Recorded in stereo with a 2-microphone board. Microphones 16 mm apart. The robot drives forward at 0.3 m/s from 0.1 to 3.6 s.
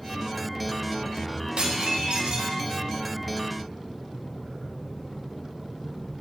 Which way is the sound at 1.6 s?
75° right (ahead or behind).